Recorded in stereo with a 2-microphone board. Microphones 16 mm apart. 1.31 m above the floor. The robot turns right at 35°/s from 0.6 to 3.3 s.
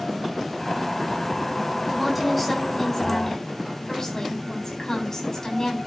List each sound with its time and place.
1.9 s a woman speaking: 10° right, 8 m; by 5.8 s 40° left, 8 m